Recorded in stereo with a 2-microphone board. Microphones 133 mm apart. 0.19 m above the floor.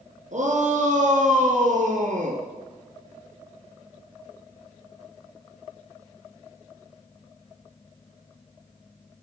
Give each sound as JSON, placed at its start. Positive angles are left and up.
{"t": 0.3, "sound": "a shout", "side_deg": -65, "distance_m": 3.0}